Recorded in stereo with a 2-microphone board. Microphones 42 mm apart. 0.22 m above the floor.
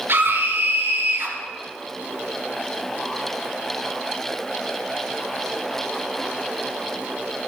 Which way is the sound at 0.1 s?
65° right (ahead or behind).